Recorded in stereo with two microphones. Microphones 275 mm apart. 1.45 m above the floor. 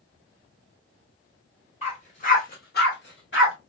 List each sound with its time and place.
1.8 s a dog barking: 25° left (ahead or behind), 1.5 m; by 3.5 s 45° left (ahead or behind), 1.3 m